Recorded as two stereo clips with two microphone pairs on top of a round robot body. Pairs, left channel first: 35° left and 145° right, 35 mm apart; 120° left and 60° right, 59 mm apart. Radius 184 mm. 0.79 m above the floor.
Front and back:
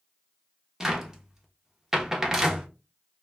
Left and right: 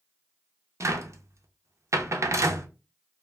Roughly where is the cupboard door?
Right.